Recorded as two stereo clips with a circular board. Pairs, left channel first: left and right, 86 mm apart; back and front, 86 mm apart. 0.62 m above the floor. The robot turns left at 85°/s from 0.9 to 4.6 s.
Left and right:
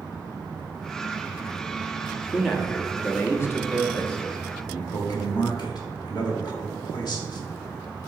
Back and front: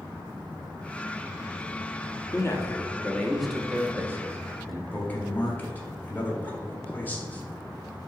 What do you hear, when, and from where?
2.3 s a man speaking: 170° right, 1.0 m; by 4.8 s 5° right, 1.0 m
4.9 s a man speaking: 115° left, 1.7 m